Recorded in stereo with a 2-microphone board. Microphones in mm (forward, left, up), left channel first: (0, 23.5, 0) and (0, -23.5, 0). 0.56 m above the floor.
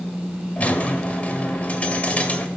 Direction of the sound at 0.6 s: 30° left (ahead or behind).